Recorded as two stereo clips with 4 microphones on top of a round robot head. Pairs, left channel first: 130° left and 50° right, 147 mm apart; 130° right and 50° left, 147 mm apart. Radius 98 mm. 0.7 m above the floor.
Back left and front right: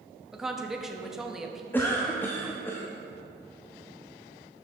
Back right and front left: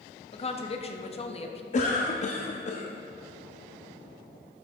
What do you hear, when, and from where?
0.3 s a woman speaking: 135° right, 1.1 m
1.7 s a cough: 155° right, 1.0 m